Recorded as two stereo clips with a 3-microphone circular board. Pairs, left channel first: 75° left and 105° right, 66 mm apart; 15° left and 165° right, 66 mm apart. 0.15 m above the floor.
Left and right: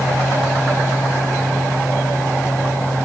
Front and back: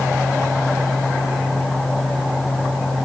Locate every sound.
Only background noise.